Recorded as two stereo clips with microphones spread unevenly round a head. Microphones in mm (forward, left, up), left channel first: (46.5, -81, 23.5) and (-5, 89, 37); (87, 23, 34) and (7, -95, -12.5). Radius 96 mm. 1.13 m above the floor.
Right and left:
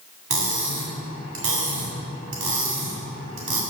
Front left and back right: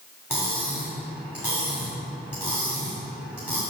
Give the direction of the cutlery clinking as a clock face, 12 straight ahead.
8 o'clock.